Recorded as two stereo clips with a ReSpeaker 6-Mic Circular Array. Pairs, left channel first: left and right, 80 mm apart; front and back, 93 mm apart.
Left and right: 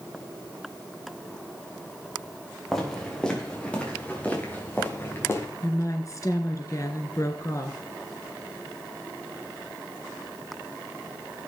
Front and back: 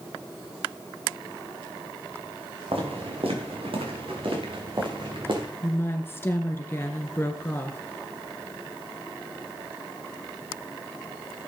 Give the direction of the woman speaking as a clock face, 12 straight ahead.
10 o'clock.